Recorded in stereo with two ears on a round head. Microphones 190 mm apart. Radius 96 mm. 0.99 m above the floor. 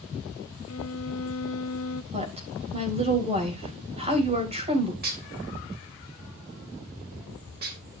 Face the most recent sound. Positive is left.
turn(degrees=-45)  # may be behind; listen again after turning